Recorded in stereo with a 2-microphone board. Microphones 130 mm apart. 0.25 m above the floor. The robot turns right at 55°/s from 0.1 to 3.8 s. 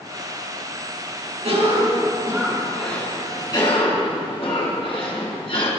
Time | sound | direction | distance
1.4 | a cough | 70° right | 3 m